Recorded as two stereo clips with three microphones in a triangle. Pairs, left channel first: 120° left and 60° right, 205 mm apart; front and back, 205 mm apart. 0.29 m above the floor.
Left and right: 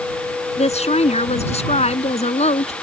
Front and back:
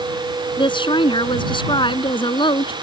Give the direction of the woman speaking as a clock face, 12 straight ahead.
10 o'clock.